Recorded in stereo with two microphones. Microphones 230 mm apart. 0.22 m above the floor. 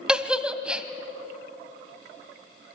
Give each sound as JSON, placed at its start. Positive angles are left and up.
{"t": 0.1, "sound": "a giggle", "side_deg": -5, "distance_m": 1.4}